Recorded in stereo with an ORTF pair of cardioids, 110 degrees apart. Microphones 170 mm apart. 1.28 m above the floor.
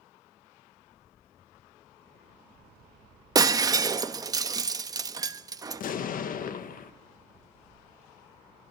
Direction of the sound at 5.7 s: 55° left.